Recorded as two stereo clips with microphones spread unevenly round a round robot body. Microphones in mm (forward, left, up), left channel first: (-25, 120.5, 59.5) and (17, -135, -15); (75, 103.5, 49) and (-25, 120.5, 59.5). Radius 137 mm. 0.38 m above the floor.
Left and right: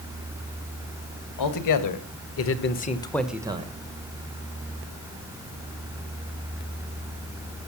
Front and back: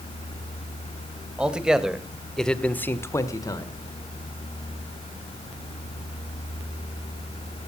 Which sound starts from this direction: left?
A man speaking, at 1.4 s.